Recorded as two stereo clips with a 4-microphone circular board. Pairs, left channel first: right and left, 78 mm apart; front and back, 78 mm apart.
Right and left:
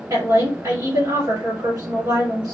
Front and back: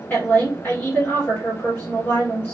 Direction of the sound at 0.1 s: 60° left.